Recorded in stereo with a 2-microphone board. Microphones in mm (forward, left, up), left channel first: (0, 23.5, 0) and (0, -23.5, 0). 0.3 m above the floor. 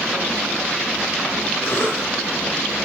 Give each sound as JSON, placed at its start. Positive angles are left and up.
{"t": 1.6, "sound": "a cough", "side_deg": 65, "distance_m": 5.5}